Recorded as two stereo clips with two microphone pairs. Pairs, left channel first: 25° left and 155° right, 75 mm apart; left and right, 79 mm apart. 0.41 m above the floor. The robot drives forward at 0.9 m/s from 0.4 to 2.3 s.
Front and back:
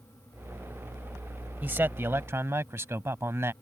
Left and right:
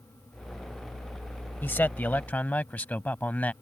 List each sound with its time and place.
1.6 s a man speaking: 145° left; by 3.5 s 155° left